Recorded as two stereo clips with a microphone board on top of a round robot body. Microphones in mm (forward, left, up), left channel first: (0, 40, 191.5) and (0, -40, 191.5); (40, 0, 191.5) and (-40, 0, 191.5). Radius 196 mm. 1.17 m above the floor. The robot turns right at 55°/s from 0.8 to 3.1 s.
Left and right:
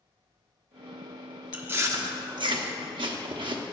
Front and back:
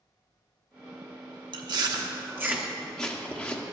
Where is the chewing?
165° right, 0.8 m; by 3.6 s 75° right, 0.8 m.